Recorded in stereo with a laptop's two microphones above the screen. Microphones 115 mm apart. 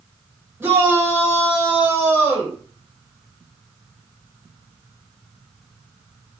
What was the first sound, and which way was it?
A shout, 20° right (ahead or behind).